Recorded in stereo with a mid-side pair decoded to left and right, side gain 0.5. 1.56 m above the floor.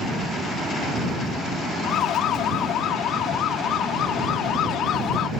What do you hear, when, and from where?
1.8 s a siren: 65° left